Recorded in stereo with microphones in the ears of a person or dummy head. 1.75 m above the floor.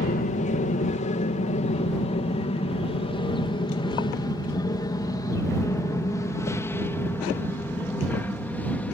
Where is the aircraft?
40° left (ahead or behind); by 8.9 s 5° left (ahead or behind).